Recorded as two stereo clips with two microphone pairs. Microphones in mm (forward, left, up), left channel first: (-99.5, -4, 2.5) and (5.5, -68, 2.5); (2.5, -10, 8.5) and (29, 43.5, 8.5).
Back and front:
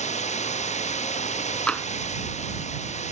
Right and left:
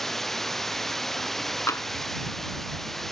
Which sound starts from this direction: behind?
Running water, at 0.0 s.